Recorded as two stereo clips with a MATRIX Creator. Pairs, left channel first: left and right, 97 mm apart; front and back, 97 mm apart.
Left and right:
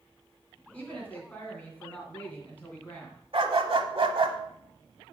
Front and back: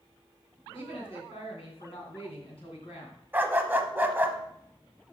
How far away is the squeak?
No squeak in this recording.